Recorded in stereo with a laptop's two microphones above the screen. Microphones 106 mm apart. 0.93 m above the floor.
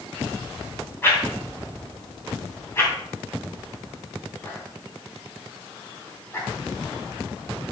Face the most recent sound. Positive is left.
turn(degrees=20)  # may be behind; listen again after turning